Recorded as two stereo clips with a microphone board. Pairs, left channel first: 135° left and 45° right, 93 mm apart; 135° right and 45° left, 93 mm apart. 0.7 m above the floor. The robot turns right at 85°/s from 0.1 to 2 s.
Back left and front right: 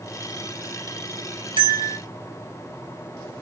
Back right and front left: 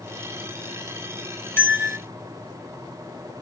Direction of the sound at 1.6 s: 70° right.